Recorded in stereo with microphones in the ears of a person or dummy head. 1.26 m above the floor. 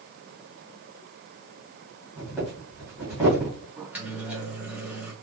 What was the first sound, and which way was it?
Breathing, 5° left (ahead or behind).